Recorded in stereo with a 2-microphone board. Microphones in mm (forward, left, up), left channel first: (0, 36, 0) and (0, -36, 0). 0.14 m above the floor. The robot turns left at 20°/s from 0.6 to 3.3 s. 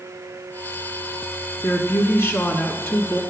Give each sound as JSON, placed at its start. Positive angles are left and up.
{"t": 1.6, "sound": "a woman speaking", "azimuth_deg": 75, "distance_m": 1.7}